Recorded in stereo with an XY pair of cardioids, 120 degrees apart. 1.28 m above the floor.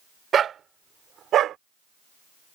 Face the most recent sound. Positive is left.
turn(degrees=-65)